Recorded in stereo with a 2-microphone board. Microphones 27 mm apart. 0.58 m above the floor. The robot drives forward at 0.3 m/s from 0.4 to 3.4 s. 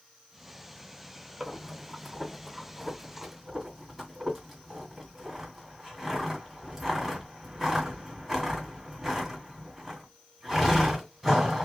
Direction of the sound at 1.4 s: Centre (ahead or behind).